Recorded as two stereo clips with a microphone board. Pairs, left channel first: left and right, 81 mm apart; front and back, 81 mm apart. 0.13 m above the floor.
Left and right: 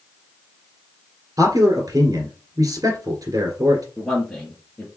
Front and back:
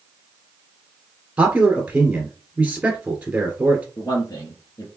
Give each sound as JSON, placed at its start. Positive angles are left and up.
{"t": 1.4, "sound": "a man speaking", "azimuth_deg": -110, "distance_m": 1.8}
{"t": 4.0, "sound": "a man speaking", "azimuth_deg": 10, "distance_m": 2.0}